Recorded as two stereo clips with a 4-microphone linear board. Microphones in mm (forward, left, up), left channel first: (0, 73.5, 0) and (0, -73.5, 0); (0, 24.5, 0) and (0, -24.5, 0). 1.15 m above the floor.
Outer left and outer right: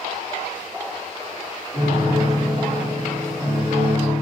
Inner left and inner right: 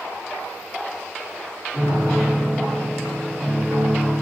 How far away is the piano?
About 2.5 m.